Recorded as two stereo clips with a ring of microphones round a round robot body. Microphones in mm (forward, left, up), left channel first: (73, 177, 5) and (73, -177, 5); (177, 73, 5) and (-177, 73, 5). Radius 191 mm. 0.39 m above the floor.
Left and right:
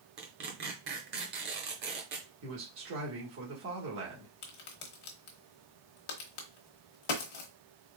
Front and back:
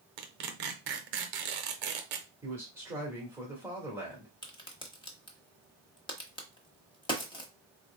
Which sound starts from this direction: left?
A crack, at 4.4 s.